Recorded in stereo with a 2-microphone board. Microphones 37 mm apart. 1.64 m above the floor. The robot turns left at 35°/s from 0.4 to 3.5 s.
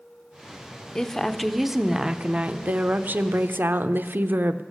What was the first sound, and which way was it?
A woman speaking, 20° left.